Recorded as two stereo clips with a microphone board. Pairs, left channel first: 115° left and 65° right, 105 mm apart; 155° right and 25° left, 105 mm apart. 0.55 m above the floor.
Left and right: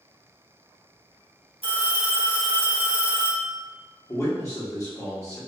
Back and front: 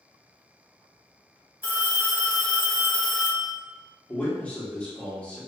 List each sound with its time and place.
1.6 s a phone ringing: 45° right, 1.1 m
4.1 s a man speaking: 135° left, 0.8 m